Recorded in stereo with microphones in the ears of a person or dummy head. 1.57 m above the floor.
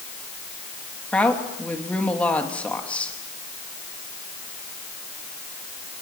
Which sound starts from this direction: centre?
A woman speaking, at 1.1 s.